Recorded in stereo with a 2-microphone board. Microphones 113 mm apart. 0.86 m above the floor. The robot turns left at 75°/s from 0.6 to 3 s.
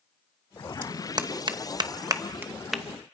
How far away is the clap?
About 0.8 m.